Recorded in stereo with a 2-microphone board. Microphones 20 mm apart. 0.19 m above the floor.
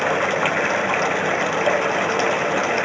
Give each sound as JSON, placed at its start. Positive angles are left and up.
{"t": 0.0, "sound": "running water", "side_deg": 5}